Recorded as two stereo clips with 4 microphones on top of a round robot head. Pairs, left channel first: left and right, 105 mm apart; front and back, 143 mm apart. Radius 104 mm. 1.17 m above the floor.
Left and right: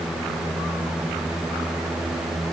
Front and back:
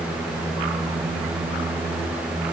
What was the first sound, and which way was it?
Only background noise.